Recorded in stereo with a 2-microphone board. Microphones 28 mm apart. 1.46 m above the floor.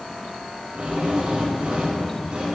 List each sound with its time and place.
0.8 s a drill: 45° right (ahead or behind), 7 m